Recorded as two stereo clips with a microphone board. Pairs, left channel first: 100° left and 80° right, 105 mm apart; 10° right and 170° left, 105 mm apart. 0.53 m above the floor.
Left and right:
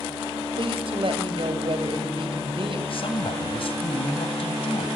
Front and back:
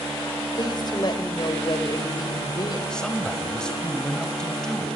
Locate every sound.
0.6 s a woman speaking: 55° right, 3 m
2.9 s a man speaking: 70° left, 2.5 m